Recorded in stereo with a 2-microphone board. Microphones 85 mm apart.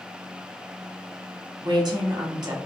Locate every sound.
1.6 s a woman speaking: 50° right (ahead or behind), 0.8 m